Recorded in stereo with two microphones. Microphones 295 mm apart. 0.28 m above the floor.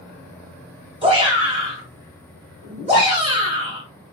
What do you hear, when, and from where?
1.0 s a shout: 20° right (ahead or behind), 1.5 m